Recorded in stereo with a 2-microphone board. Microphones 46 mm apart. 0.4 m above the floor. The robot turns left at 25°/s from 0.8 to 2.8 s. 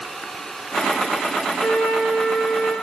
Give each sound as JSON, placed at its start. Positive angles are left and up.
{"t": 1.6, "sound": "a flute", "side_deg": 0, "distance_m": 1.7}